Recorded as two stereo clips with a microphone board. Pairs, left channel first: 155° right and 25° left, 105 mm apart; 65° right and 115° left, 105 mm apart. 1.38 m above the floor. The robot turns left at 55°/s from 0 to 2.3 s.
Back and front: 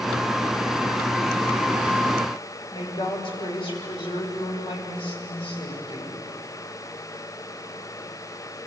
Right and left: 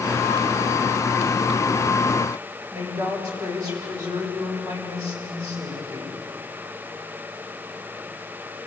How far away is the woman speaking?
About 6.5 m.